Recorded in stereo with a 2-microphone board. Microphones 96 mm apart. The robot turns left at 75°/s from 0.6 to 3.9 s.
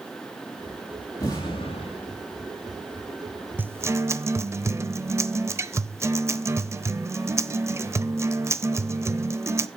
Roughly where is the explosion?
Behind left.